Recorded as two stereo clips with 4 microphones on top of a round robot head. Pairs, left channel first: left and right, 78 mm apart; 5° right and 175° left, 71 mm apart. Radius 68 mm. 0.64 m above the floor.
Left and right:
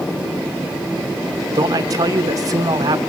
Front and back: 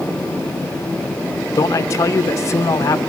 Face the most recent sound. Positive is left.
turn(degrees=-50)